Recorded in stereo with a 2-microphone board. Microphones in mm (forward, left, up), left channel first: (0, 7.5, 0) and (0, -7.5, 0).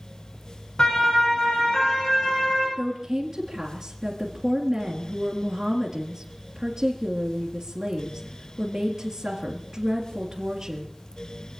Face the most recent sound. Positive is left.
turn(degrees=-45)  # may be behind; listen again after turning